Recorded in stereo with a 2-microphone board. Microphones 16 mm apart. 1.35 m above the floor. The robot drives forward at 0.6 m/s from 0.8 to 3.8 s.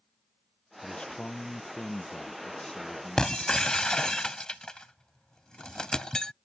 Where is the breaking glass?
45° left (ahead or behind); by 6.3 s 50° left (ahead or behind).